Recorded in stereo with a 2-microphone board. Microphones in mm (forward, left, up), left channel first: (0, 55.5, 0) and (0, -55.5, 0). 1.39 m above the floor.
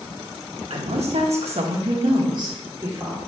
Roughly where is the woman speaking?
Right.